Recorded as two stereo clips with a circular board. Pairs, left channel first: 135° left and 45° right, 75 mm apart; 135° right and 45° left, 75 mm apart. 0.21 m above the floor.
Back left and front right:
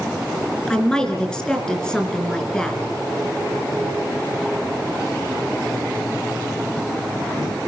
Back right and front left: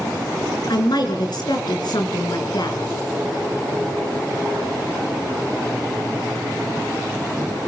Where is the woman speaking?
145° right, 3.5 m.